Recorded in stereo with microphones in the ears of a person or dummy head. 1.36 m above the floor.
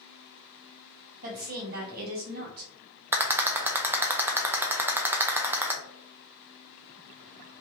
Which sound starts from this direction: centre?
A rattle, at 3.1 s.